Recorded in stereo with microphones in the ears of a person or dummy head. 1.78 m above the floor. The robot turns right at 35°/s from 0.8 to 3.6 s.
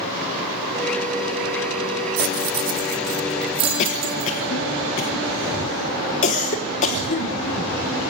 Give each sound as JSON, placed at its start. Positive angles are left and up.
{"t": 2.2, "sound": "keys jangling", "side_deg": -45, "distance_m": 1.3}
{"t": 3.8, "sound": "a cough", "side_deg": 40, "distance_m": 1.3}